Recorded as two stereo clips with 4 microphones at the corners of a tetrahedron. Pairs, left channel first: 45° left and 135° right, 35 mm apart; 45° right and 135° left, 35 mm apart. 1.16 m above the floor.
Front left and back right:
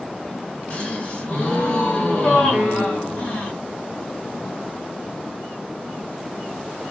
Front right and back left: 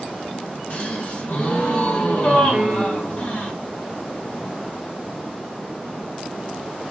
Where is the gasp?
Straight ahead, 1.6 m.